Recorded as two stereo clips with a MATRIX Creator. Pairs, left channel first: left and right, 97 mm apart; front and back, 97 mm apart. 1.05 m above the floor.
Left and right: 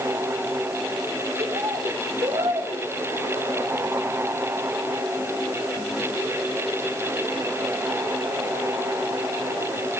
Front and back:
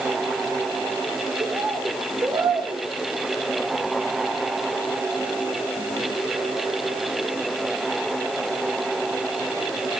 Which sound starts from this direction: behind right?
A bird, at 1.4 s.